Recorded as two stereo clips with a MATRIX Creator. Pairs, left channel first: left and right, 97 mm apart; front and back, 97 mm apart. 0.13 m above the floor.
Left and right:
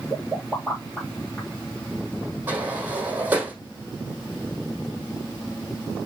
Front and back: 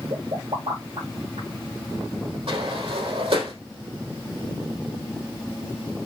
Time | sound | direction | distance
0.1 | a pop | 175° left | 8 m
2.5 | a sliding door | 160° right | 3.5 m